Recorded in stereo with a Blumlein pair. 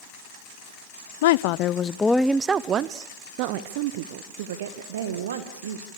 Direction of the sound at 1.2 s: 55° left.